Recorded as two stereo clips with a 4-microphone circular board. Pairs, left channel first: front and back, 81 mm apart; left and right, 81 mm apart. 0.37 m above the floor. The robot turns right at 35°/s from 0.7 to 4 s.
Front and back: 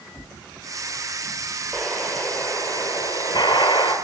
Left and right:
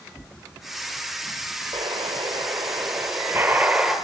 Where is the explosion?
85° right, 5.5 m; by 4.0 s 5° right, 5.5 m.